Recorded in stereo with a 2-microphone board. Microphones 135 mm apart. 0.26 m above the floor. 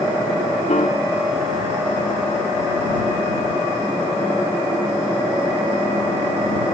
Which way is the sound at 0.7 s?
65° left (ahead or behind).